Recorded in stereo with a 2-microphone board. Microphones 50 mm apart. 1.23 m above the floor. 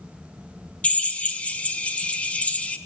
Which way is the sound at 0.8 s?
25° left (ahead or behind).